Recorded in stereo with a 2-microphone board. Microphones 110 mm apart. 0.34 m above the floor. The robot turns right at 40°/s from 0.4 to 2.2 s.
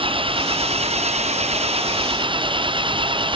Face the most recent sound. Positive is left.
turn(degrees=-50)